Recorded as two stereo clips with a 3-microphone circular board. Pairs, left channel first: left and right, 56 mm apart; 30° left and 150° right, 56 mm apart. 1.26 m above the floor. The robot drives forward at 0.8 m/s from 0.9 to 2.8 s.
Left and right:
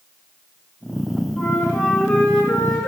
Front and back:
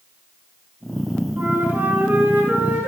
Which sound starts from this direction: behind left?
A flute, at 1.4 s.